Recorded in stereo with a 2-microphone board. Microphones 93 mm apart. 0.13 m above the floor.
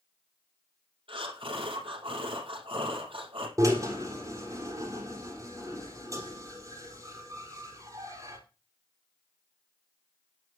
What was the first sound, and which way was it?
Breathing, 70° right (ahead or behind).